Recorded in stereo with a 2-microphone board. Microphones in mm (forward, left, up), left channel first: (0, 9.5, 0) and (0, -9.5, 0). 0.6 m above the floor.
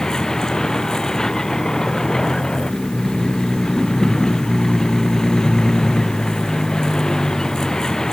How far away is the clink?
No clink in this recording.